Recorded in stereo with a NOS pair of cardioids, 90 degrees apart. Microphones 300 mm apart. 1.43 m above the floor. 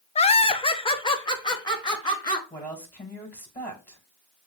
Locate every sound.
0.1 s laughter: 20° left, 0.5 m; by 2.4 s 15° left, 2.5 m
2.5 s a woman speaking: 5° left, 2.5 m